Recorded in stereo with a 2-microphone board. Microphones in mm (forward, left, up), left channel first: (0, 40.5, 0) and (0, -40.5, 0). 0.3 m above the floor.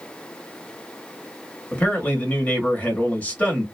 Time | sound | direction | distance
1.7 | a man speaking | 20° left (ahead or behind) | 1.1 m